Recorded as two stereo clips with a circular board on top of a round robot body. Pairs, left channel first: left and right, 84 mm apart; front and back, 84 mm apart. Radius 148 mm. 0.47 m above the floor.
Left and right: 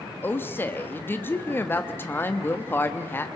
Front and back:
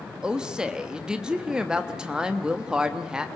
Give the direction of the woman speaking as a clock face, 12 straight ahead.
8 o'clock.